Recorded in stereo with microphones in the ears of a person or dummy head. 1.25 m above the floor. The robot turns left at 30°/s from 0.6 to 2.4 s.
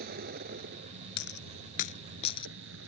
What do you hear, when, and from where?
0.0 s a vehicle: 55° right; by 2.9 s 110° right
1.2 s a dropped coin: 70° left (ahead or behind); by 2.5 s 30° left (ahead or behind)